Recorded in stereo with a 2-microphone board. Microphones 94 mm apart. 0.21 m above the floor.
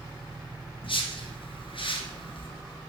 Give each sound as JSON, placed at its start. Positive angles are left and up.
{"t": 0.8, "sound": "a whoosh", "side_deg": 65, "distance_m": 1.1}